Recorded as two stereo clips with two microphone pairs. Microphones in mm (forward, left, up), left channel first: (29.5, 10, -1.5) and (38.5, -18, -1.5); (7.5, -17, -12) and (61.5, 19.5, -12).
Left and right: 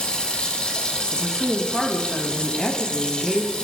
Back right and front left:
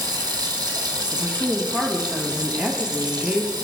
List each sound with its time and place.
0.0 s running water: 45° left, 1.8 m
1.1 s a woman speaking: 45° left, 1.2 m